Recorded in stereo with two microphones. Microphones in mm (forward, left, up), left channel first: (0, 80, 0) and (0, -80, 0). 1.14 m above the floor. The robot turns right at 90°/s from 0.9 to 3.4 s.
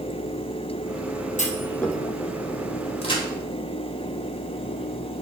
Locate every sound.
1.4 s a clunk: 50° left (ahead or behind), 1.0 m; by 2.0 s 5° right (ahead or behind), 1.0 m
3.0 s a crack: 40° left (ahead or behind), 2 m; by 3.2 s 20° left (ahead or behind), 2 m